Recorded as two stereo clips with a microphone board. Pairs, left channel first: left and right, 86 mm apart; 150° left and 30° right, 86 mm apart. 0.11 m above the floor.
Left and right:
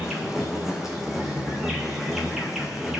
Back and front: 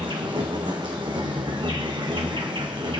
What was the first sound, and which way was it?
An insect, 5° right.